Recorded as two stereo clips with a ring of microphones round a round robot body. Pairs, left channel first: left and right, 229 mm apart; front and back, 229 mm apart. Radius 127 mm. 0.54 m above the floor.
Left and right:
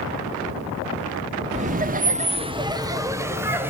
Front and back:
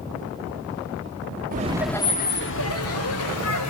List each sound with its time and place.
1.5 s laughter: 140° right, 0.8 m; by 3.7 s 10° right, 2.5 m